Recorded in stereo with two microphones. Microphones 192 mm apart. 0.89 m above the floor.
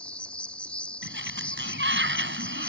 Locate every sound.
0.0 s an insect: 5° left (ahead or behind)
1.0 s a sliding door: 75° right (ahead or behind)